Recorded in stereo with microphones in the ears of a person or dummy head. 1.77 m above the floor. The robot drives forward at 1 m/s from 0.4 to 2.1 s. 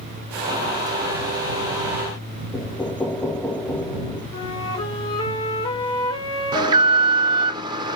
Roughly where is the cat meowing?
I don't hear a cat meowing.